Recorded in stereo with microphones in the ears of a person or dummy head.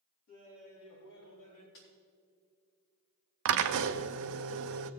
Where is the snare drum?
70° left (ahead or behind), 3.5 m.